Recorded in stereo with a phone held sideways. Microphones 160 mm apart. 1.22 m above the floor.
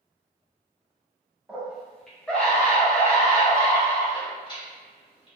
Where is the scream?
10° right (ahead or behind), 1.4 m; by 5.3 s 30° left (ahead or behind), 3 m.